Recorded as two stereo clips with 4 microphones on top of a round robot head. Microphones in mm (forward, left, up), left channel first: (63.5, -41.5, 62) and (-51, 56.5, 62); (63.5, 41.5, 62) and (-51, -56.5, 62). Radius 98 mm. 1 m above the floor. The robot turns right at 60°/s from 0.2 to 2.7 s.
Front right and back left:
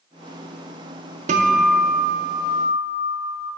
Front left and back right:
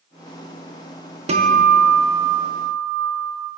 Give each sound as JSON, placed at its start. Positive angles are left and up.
{"t": 1.3, "sound": "a guitar", "azimuth_deg": 175, "distance_m": 0.6}